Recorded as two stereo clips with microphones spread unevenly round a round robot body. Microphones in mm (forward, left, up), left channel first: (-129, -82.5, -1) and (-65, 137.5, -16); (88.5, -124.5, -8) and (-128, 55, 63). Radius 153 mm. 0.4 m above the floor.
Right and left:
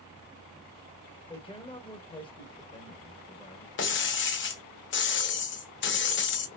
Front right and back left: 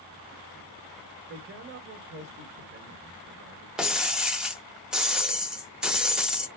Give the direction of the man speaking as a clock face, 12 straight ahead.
6 o'clock.